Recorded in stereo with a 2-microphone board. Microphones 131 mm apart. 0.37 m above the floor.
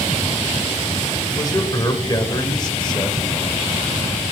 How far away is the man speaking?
About 1.2 m.